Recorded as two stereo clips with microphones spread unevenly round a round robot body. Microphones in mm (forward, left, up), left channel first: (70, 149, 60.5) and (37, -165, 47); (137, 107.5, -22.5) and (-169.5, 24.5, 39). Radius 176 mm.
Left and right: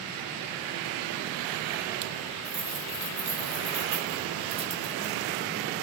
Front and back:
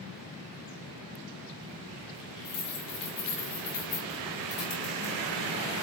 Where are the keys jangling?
25° right, 6 m.